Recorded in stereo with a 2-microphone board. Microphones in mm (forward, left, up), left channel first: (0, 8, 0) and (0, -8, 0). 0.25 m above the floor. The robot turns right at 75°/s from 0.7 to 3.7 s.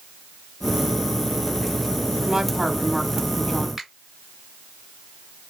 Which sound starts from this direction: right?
A finger snap, at 3.8 s.